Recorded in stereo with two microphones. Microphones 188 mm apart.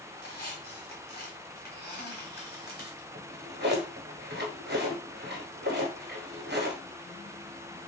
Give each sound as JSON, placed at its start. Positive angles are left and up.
{"t": 0.2, "sound": "a squeak", "side_deg": 55, "distance_m": 1.4}
{"t": 3.1, "sound": "a drawer", "side_deg": -65, "distance_m": 0.9}